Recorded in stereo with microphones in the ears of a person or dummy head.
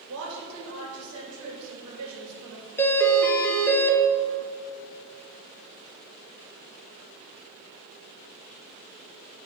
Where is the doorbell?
10° left (ahead or behind), 0.5 m.